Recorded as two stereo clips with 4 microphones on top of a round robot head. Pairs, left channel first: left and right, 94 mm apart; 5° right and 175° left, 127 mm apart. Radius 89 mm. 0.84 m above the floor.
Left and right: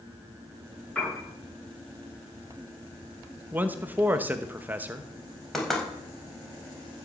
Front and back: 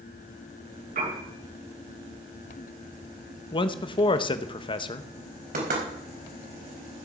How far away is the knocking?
About 4.5 m.